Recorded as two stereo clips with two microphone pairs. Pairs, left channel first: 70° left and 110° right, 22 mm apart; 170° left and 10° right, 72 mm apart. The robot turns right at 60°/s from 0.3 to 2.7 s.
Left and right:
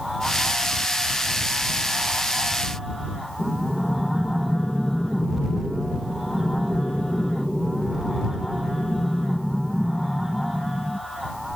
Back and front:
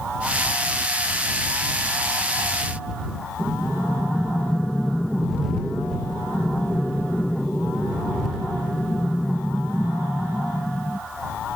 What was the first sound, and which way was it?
Breathing, 100° left.